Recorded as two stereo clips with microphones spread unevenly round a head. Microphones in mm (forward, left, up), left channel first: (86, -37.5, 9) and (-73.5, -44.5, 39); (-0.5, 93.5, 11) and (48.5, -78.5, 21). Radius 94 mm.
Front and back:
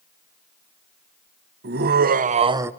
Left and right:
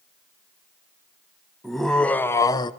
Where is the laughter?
165° right, 1.1 m; by 2.7 s 95° left, 0.6 m.